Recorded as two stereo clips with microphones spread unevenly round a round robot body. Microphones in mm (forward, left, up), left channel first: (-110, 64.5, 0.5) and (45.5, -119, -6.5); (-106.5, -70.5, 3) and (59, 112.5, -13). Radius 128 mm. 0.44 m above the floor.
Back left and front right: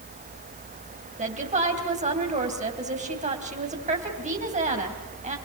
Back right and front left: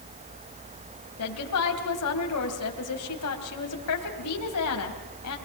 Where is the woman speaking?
105° right, 3 m.